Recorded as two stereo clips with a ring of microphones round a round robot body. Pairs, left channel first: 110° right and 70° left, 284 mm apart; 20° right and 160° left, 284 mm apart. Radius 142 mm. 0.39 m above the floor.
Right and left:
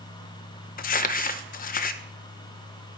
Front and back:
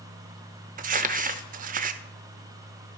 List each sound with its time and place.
0.8 s crumpling: 155° right, 0.5 m